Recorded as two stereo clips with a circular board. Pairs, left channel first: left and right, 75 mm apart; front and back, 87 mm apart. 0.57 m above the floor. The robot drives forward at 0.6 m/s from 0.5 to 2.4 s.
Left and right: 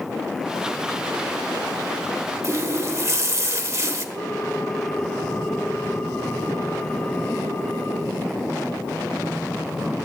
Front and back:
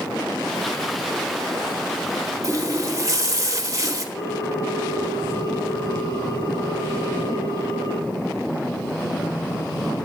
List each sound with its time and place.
2.4 s a running tap: 135° right, 1.2 m
4.2 s a ringtone: 35° left, 8 m